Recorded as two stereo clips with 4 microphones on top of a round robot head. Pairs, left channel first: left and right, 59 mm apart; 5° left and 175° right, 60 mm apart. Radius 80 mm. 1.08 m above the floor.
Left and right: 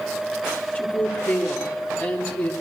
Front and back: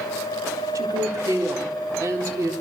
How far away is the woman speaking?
About 4 m.